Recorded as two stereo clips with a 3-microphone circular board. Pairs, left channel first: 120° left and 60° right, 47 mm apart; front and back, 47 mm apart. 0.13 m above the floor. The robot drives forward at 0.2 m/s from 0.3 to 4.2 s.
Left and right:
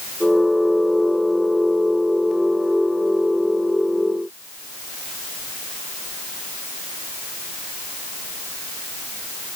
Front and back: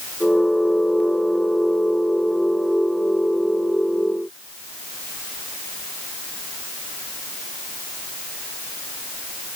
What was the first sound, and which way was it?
Only background noise.